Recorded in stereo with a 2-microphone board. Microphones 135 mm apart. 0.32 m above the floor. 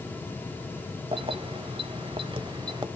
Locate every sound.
1.1 s keys jangling: 40° right (ahead or behind), 1.1 m; by 2.9 s 30° right (ahead or behind), 1.0 m